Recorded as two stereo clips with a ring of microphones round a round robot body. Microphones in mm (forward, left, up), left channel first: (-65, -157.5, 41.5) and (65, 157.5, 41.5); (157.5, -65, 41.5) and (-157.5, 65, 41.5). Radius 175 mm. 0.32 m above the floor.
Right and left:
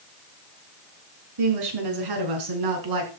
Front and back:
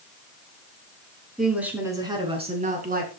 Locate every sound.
1.4 s a woman speaking: 70° left, 4.5 m; by 3.1 s 95° left, 4.5 m